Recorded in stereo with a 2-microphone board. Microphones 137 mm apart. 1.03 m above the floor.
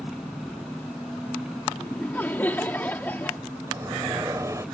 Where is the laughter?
15° left (ahead or behind).